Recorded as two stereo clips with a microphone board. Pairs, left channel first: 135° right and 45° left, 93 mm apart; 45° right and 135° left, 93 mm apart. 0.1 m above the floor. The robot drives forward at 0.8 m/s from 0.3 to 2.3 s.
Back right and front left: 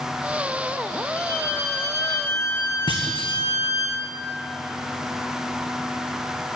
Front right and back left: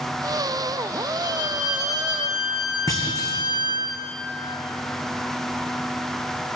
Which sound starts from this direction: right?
A clunk, at 2.9 s.